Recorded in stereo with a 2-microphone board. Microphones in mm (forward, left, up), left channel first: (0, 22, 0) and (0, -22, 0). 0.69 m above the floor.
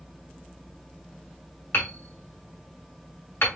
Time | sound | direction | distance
1.7 | hammering | 60° left (ahead or behind) | 2.5 m